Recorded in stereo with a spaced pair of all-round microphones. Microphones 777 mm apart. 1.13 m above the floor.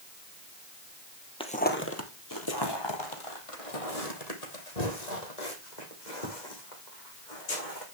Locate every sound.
1.4 s footsteps: 5° left (ahead or behind), 1.8 m; by 7.8 s 70° left (ahead or behind), 5 m